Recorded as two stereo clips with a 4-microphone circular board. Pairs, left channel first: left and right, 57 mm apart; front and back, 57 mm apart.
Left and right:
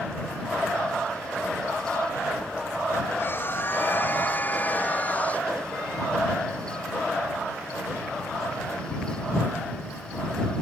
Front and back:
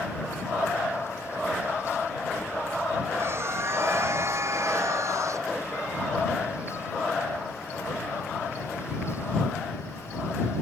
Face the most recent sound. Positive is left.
turn(degrees=155)